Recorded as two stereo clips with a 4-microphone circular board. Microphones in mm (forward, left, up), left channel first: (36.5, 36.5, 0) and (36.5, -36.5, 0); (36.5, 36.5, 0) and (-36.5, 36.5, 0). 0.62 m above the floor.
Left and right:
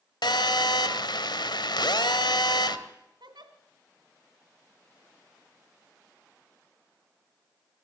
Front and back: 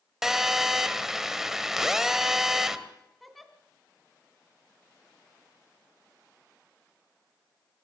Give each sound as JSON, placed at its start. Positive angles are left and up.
{"t": 0.2, "sound": "a phone buzzing", "azimuth_deg": 95, "distance_m": 1.8}
{"t": 3.2, "sound": "a giggle", "azimuth_deg": -85, "distance_m": 2.0}